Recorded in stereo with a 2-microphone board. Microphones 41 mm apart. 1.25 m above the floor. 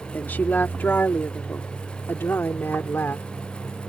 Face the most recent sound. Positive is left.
turn(degrees=80)